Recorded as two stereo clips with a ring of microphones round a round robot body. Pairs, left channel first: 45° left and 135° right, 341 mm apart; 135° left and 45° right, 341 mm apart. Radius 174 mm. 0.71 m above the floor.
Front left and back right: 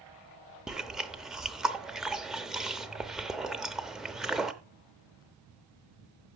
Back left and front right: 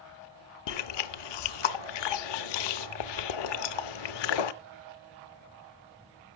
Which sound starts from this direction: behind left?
Chewing, at 0.7 s.